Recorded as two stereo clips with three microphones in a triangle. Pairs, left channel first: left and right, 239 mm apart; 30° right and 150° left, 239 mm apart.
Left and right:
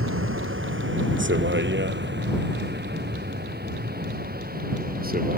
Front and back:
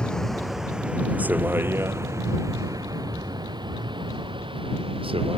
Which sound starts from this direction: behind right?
A vehicle, at 0.0 s.